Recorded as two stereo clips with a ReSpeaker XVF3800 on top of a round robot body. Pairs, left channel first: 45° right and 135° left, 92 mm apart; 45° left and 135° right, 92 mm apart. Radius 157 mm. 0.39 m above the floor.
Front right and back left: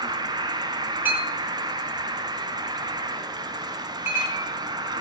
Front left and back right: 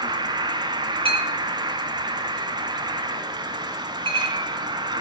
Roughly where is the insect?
Behind.